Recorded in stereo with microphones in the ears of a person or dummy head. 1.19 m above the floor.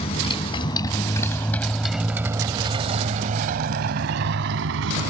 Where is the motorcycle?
35° left (ahead or behind); by 5.1 s 75° right (ahead or behind).